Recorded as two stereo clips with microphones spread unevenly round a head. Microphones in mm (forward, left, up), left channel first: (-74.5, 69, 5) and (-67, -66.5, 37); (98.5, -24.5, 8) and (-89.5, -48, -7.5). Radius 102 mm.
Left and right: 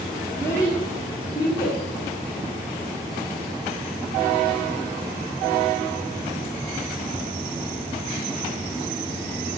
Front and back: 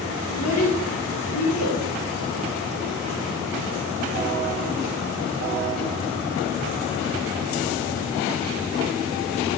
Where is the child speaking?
15° left, 2.5 m; by 1.8 s 30° left, 3.5 m.